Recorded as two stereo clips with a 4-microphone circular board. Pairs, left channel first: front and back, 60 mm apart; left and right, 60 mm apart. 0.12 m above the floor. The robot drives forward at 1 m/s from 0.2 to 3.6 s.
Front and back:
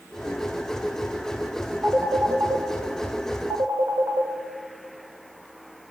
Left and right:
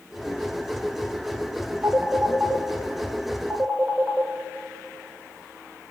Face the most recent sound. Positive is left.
turn(degrees=-165)